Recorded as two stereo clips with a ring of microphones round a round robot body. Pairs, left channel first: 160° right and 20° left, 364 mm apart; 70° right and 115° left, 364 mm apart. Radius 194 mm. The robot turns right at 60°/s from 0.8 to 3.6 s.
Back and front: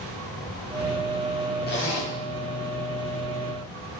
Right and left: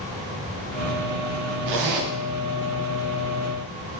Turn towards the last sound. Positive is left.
turn(degrees=-105)